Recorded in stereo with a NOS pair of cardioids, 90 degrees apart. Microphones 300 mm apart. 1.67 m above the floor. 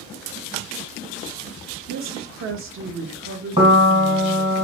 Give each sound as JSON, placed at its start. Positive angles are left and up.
{"t": 1.9, "sound": "a woman speaking", "azimuth_deg": -45, "distance_m": 1.0}
{"t": 3.6, "sound": "a piano", "azimuth_deg": -20, "distance_m": 1.4}